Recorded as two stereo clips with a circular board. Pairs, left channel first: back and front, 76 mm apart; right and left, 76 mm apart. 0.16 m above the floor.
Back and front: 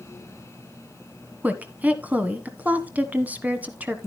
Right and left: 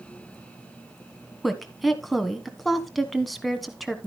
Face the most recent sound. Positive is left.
turn(degrees=0)